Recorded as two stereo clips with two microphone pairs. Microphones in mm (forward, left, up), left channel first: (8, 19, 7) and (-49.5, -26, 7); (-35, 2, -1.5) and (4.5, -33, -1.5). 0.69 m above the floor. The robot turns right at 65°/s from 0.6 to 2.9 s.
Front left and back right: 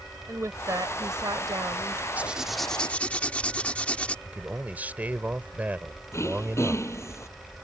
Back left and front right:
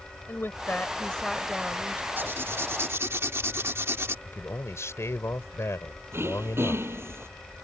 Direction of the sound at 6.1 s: 10° right.